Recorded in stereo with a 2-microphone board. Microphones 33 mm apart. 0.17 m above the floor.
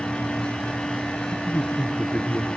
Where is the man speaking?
45° left (ahead or behind), 2.5 m.